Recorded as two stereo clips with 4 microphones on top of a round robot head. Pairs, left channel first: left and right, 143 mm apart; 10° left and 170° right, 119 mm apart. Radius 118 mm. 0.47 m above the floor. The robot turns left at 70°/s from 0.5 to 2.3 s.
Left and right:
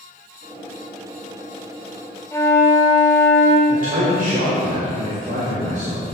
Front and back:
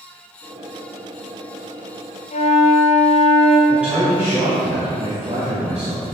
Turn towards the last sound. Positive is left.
turn(degrees=-90)